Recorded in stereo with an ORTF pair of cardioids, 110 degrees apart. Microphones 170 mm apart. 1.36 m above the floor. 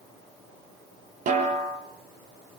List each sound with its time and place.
1.3 s a snare drum: 50° right, 6 m